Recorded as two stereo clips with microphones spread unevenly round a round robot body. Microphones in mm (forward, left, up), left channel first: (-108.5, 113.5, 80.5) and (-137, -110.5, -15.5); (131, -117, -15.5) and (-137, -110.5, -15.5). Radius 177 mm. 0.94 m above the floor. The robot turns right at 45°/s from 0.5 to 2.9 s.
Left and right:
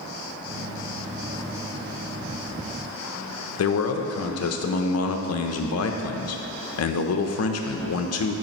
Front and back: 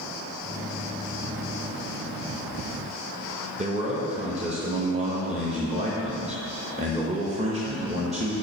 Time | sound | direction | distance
3.6 | a man speaking | 110° left | 0.7 m